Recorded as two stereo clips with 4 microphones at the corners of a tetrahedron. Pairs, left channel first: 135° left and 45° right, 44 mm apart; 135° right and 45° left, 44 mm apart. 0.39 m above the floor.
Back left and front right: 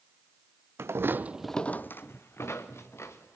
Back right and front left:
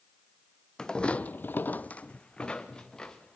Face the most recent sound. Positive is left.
turn(degrees=150)